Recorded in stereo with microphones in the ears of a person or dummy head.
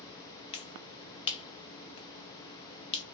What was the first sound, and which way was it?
A finger snap, 35° left (ahead or behind).